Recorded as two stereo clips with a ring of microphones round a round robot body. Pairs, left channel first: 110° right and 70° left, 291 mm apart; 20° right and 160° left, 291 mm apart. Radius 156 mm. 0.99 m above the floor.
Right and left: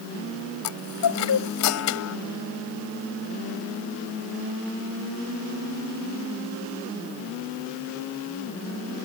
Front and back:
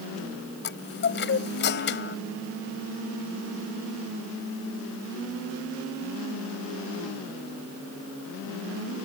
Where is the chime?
75° right.